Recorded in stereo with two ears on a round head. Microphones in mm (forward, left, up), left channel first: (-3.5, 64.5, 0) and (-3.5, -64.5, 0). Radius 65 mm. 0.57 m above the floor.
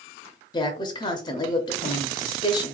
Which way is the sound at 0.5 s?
30° left (ahead or behind).